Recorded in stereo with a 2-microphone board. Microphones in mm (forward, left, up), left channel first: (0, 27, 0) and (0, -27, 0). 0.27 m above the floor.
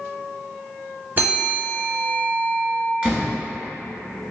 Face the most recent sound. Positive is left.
turn(degrees=-30)  # may be behind; listen again after turning